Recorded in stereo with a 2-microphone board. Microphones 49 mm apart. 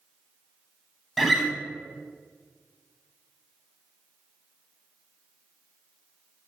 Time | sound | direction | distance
1.2 | a guitar | centre (ahead or behind) | 0.6 m